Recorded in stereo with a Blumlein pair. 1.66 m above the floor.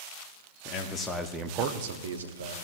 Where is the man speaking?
30° left, 1.0 m; by 2.5 s 80° right, 1.4 m.